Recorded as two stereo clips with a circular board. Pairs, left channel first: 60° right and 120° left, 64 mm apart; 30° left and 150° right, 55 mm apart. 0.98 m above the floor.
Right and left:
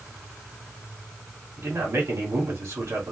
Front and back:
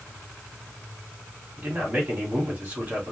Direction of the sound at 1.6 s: 155° left.